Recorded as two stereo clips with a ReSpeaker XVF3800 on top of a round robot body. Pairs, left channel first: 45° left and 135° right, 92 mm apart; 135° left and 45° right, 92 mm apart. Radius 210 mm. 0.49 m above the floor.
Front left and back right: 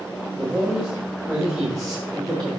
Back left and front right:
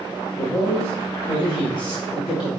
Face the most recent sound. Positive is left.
turn(degrees=125)